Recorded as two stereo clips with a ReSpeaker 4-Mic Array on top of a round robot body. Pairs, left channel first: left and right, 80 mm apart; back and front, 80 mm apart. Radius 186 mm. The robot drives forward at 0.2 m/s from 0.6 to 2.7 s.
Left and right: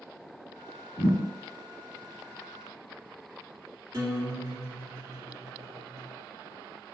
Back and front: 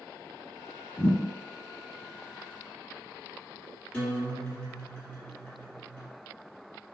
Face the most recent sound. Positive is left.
turn(degrees=-125)